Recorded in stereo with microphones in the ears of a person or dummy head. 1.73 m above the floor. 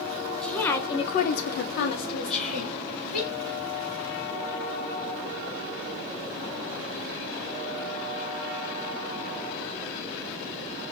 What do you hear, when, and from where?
0.4 s a woman speaking: centre (ahead or behind), 0.8 m; by 3.3 s 45° left (ahead or behind), 1.5 m
2.3 s whispering: 5° left (ahead or behind), 1.1 m